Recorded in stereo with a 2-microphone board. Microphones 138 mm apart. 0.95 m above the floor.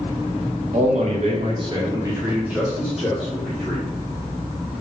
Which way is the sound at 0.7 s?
60° right (ahead or behind).